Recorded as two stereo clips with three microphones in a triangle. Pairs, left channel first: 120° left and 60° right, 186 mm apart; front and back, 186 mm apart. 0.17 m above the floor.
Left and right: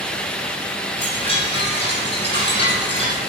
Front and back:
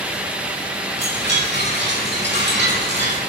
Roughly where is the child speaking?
I don't hear a child speaking.